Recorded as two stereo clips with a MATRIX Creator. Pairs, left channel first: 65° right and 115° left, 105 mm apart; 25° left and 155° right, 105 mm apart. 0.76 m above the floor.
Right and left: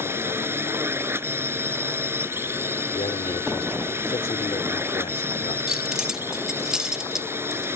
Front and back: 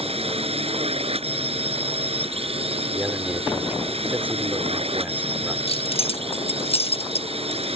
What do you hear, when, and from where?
0.0 s a drone: straight behind
3.0 s a man speaking: 85° right
5.7 s keys jangling: 30° left